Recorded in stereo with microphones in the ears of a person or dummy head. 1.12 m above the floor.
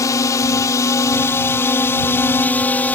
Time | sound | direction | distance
0.0 | a drone | 15° left (ahead or behind) | ?